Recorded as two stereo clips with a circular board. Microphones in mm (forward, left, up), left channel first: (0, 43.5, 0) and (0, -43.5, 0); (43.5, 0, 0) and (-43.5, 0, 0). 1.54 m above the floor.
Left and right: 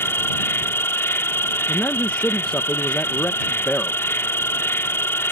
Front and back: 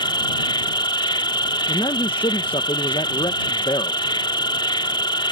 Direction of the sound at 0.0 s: 25° left.